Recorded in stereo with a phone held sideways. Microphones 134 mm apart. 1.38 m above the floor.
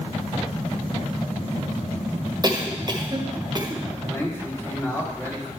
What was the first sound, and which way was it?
A cough, 30° right (ahead or behind).